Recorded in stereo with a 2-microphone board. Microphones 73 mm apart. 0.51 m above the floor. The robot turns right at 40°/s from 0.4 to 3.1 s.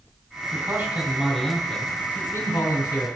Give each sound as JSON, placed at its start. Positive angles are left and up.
{"t": 0.5, "sound": "a man speaking", "azimuth_deg": -40, "distance_m": 3.5}